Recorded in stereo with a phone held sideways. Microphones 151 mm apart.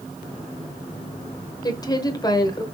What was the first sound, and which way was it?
A woman speaking, 25° left (ahead or behind).